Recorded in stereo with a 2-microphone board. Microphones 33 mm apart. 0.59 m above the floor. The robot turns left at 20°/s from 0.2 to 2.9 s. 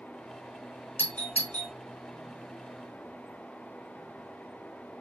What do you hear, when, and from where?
1.0 s a doorbell: 55° left (ahead or behind), 1.8 m